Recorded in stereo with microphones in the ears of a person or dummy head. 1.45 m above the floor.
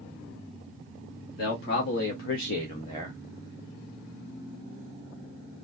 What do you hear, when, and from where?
1.4 s a man speaking: 65° left (ahead or behind), 1.0 m; by 3.2 s 5° left (ahead or behind), 0.7 m